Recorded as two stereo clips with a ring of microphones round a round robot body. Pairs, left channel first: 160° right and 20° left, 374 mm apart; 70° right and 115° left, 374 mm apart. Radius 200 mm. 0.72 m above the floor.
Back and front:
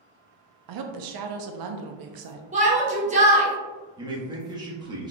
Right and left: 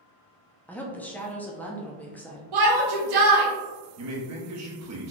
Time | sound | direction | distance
0.7 | a woman speaking | 20° left | 0.7 m
2.5 | a shout | 95° left | 1.4 m
4.0 | a man speaking | 95° left | 1.2 m